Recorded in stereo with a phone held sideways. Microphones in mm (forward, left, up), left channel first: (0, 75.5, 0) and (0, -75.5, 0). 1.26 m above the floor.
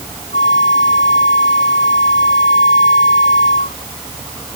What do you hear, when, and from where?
0.3 s a flute: 75° left (ahead or behind)